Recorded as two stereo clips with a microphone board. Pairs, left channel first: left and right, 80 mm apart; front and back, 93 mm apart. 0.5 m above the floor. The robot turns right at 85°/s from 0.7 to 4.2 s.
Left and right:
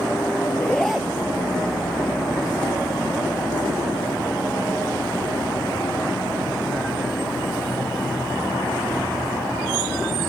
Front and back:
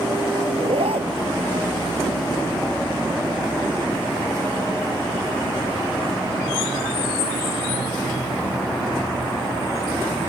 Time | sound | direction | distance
0.5 | a zipper | 165° left | ?